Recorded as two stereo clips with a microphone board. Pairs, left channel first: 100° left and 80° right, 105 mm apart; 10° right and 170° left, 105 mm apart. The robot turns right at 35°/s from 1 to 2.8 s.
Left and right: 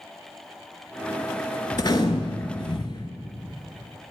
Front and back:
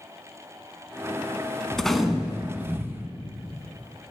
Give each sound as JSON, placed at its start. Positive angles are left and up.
{"t": 1.7, "sound": "a gunshot", "azimuth_deg": 70, "distance_m": 0.6}